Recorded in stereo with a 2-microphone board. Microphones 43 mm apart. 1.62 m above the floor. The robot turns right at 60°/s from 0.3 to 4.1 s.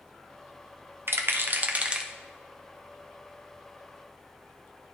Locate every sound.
1.1 s a rattle: 65° right (ahead or behind), 0.7 m; by 2.1 s 15° right (ahead or behind), 0.7 m